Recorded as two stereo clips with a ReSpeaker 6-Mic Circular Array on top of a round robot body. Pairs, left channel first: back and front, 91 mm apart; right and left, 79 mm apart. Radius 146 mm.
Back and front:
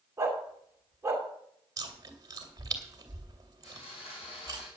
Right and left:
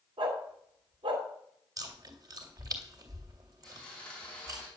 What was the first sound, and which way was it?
A dog barking, 65° left.